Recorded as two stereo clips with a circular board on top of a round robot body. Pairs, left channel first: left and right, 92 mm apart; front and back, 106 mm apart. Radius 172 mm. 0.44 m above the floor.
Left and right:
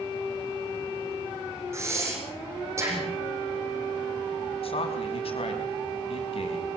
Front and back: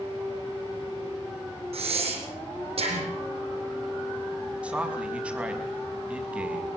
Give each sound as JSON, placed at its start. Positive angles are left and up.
{"t": 1.7, "sound": "breathing", "azimuth_deg": -150, "distance_m": 5.0}
{"t": 4.6, "sound": "a man speaking", "azimuth_deg": 100, "distance_m": 5.5}